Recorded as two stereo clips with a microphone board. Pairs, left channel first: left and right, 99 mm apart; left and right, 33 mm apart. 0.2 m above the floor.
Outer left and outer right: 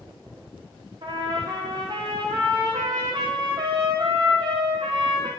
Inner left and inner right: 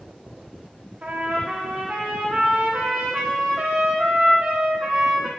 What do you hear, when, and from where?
1.0 s a trumpet: 50° right (ahead or behind), 5 m